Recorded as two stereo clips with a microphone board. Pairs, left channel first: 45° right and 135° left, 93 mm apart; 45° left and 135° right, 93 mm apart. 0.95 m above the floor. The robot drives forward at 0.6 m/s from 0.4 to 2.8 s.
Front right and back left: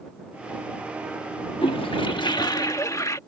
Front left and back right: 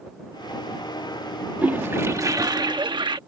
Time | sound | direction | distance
1.6 | a toilet flushing | 60° right | ?